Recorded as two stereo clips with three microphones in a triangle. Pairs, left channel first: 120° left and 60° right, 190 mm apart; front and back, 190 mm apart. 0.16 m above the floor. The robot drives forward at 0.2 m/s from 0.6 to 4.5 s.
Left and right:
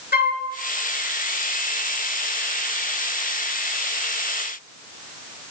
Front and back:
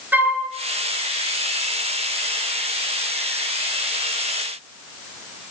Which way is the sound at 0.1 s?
100° left.